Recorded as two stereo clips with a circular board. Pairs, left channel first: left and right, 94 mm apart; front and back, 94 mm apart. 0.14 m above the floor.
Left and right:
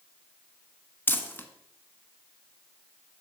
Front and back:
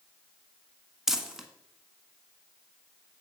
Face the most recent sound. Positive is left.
turn(degrees=105)